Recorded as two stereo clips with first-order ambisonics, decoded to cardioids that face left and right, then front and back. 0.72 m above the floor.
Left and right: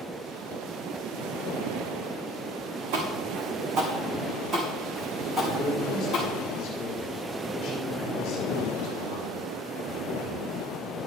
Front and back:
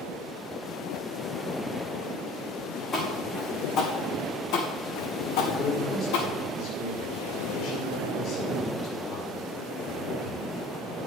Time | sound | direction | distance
2.9 | footsteps | 70° right | 3 m
5.6 | a man speaking | 30° left | 2 m